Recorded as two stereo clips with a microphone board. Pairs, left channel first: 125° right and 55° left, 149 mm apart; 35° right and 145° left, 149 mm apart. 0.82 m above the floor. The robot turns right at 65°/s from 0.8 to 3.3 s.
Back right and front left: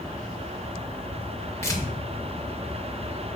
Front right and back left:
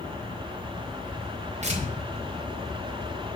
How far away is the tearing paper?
About 0.6 m.